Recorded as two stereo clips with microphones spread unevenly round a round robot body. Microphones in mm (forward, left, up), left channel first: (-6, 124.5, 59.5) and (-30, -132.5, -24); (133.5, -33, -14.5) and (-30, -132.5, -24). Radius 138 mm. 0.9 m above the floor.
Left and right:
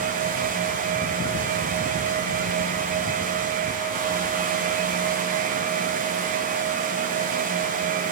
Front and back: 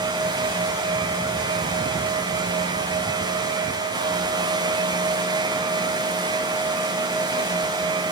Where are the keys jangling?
I don't hear keys jangling.